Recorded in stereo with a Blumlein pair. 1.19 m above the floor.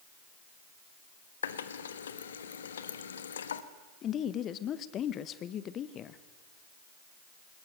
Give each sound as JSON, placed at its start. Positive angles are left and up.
{"t": 1.4, "sound": "a running tap", "azimuth_deg": 65, "distance_m": 1.1}
{"t": 4.0, "sound": "a woman speaking", "azimuth_deg": 30, "distance_m": 0.9}